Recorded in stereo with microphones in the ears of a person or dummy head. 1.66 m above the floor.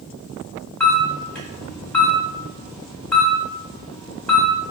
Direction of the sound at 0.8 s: 10° left (ahead or behind).